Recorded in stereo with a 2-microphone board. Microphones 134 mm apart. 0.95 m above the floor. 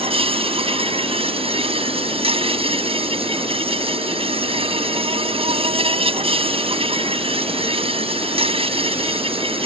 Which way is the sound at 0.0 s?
45° right (ahead or behind).